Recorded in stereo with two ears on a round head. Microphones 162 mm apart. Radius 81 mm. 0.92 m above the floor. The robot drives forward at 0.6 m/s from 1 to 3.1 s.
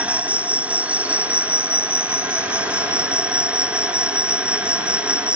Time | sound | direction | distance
0.0 | an insect | 10° right (ahead or behind) | ?